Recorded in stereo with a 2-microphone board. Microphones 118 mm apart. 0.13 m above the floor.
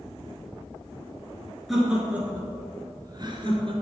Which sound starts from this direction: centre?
Laughter, at 1.7 s.